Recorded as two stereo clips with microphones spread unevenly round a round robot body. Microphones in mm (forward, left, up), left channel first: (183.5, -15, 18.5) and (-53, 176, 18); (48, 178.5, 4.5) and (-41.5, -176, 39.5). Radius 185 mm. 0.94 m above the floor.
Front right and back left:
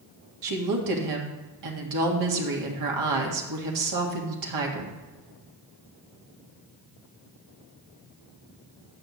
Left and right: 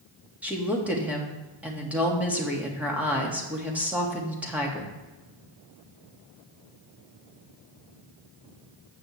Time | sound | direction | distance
0.4 | a woman speaking | 170° left | 1.7 m